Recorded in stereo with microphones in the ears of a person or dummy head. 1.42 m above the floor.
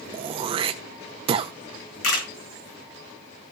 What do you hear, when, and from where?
0.1 s throat clearing: 25° right (ahead or behind), 0.8 m
2.0 s a camera shutter: 70° left (ahead or behind), 5 m